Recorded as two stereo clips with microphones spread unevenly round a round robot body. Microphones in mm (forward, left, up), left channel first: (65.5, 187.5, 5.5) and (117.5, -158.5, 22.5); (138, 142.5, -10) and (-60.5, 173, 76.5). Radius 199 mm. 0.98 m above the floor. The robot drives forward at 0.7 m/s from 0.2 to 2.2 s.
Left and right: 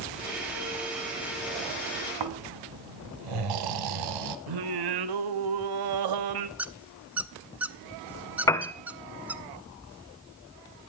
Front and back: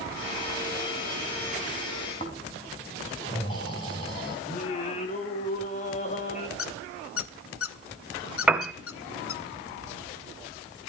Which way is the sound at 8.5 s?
175° left.